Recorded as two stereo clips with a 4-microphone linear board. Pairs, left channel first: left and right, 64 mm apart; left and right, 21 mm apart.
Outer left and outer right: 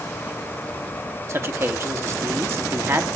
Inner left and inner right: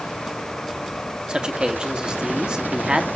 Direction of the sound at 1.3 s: 45° right (ahead or behind).